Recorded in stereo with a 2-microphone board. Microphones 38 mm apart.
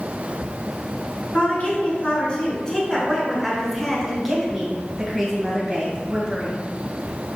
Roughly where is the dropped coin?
No dropped coin in this recording.